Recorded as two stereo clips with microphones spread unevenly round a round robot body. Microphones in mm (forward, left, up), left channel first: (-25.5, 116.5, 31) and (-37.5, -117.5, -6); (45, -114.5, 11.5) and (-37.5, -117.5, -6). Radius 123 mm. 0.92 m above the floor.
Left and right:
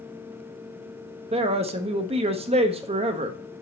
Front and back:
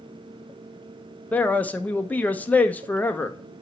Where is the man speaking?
75° right, 0.6 m.